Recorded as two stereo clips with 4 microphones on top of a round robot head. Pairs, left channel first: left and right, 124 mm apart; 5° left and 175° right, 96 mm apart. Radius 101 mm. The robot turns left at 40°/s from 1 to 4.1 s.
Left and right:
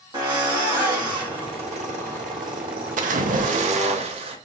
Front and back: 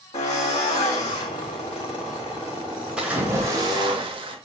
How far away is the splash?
About 0.8 m.